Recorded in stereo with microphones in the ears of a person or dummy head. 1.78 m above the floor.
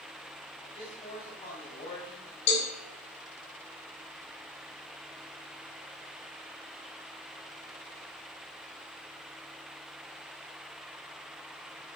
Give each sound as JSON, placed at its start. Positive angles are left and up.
{"t": 0.6, "sound": "a man speaking", "side_deg": 30, "distance_m": 5.0}
{"t": 2.5, "sound": "a cowbell", "side_deg": 65, "distance_m": 3.5}